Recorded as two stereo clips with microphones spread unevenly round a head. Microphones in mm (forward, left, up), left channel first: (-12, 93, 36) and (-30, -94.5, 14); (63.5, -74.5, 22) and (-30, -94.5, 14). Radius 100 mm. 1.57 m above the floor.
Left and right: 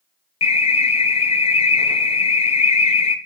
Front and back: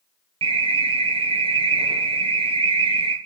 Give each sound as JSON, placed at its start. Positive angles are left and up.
{"t": 0.4, "sound": "an alarm", "azimuth_deg": 145, "distance_m": 1.3}